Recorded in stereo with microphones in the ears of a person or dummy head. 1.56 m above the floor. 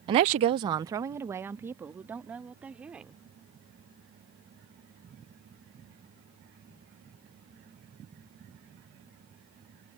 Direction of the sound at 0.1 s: 30° right (ahead or behind).